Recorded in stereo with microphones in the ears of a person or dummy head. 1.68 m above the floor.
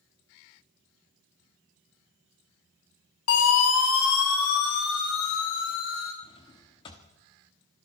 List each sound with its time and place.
3.3 s a siren: 80° left, 3 m; by 6.1 s 75° left (ahead or behind), 5 m
6.2 s a drawer: 20° left (ahead or behind), 1.3 m